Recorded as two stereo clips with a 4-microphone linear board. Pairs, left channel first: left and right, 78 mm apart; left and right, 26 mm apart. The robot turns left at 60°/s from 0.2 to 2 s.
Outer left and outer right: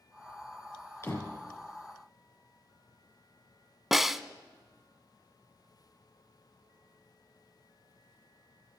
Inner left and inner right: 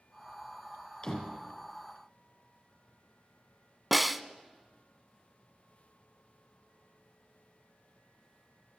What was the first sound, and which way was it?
A door slam, 30° left (ahead or behind).